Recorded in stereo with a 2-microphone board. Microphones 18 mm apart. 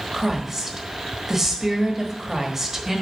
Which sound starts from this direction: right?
A woman speaking, at 0.1 s.